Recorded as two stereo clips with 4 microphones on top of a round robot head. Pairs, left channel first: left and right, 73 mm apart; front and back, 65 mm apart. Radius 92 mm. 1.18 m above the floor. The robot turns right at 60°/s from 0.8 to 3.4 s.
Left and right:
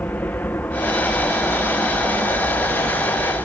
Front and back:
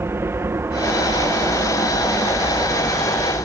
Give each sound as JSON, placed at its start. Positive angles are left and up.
{"t": 0.0, "sound": "an aircraft", "azimuth_deg": 150}